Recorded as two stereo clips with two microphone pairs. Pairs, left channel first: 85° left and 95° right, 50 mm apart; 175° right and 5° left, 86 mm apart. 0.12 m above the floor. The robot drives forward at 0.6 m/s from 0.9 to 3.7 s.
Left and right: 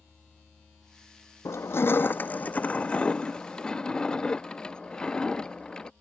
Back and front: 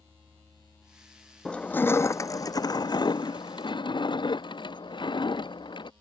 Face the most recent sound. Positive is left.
turn(degrees=155)